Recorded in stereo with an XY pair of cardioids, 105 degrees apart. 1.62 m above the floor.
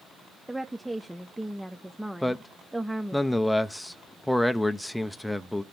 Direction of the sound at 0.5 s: 5° right.